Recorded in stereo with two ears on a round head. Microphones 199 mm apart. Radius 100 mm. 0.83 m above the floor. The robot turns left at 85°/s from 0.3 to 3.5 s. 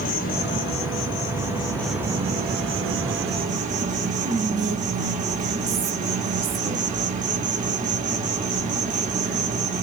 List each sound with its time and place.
0.0 s an insect: 135° left, 1.6 m; by 9.8 s 140° right, 1.6 m
4.2 s whispering: 40° right (ahead or behind), 2 m